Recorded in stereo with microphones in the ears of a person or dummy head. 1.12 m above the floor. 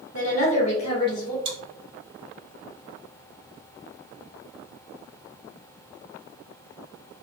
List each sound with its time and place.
0.1 s a woman speaking: 45° left (ahead or behind), 0.9 m; by 1.4 s 20° left (ahead or behind), 1.1 m
1.4 s chewing: 35° right (ahead or behind), 1.4 m